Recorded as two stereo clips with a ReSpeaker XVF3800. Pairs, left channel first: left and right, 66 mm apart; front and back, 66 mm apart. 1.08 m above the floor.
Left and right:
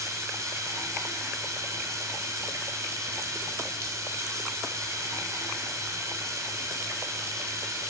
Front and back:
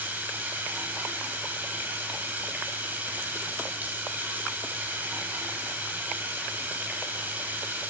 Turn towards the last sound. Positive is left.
turn(degrees=-120)